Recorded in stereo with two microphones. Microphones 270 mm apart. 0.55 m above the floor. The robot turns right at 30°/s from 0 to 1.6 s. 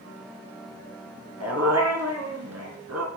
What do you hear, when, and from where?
1.4 s a dog barking: 65° right (ahead or behind), 1.7 m; by 3.1 s 70° right (ahead or behind), 1.7 m